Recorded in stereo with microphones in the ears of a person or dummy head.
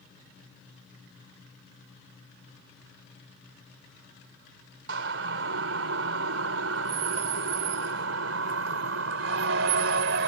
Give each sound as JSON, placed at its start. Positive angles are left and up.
{"t": 4.9, "sound": "a siren", "side_deg": -80}